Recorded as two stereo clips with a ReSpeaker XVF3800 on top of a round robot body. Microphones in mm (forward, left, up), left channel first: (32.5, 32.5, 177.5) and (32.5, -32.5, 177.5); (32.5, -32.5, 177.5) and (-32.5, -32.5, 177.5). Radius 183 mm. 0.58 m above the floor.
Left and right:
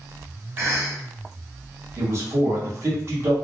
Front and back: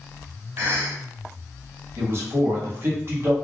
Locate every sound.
0.6 s a cough: 135° right, 1.6 m
2.0 s a man speaking: 135° right, 1.4 m